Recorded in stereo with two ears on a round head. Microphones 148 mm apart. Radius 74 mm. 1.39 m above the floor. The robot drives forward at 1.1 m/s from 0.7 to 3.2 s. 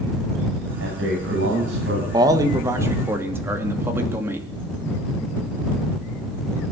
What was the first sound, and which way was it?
A man speaking, 85° right.